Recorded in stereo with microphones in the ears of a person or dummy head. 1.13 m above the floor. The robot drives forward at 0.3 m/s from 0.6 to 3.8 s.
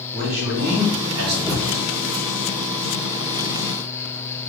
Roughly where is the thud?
Centre.